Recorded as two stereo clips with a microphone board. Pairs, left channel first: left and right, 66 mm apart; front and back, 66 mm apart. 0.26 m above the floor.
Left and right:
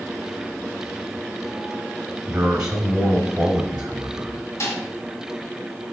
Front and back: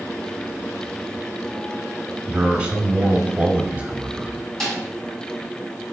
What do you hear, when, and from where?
2.3 s a man speaking: 145° right, 1.0 m
4.6 s a snare drum: 85° left, 2 m